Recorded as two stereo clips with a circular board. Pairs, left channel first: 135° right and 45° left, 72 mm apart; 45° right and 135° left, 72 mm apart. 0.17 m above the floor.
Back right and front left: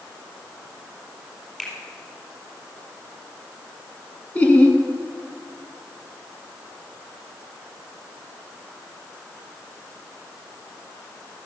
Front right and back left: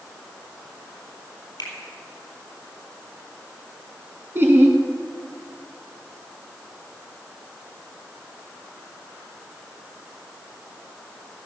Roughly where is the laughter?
Behind.